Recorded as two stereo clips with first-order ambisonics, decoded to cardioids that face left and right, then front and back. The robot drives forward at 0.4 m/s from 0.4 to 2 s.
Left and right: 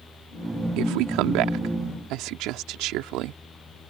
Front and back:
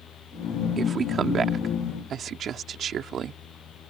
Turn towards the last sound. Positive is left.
turn(degrees=-120)